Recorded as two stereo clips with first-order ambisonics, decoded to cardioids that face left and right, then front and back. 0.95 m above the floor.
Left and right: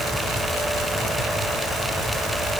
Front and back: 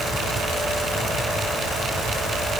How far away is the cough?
No cough in this recording.